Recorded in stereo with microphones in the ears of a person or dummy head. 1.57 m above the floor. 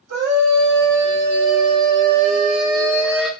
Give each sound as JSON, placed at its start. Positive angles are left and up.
{"t": 0.1, "sound": "a scream", "side_deg": -70, "distance_m": 1.2}